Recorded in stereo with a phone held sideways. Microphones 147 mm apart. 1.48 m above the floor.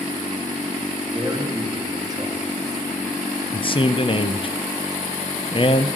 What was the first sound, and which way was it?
A man speaking, 25° right (ahead or behind).